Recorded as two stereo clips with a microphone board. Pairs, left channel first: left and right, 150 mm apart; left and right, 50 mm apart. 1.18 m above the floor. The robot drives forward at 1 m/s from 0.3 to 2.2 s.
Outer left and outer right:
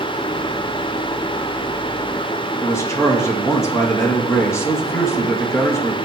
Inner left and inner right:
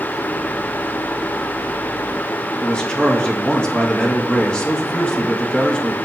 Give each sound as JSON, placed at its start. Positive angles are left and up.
{"t": 2.6, "sound": "a man speaking", "side_deg": 20, "distance_m": 1.8}